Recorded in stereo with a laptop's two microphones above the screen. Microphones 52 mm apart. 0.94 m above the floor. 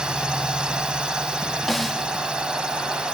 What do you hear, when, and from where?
0.0 s a drone: 15° right (ahead or behind)
1.7 s a snare drum: 5° left (ahead or behind)